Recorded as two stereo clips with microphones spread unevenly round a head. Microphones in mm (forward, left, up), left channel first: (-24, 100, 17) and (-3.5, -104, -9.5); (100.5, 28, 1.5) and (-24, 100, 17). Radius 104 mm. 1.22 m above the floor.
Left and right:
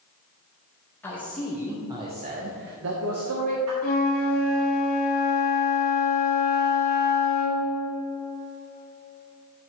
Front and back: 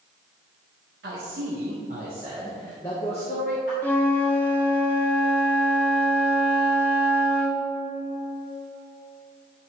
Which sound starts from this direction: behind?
A man speaking, at 1.0 s.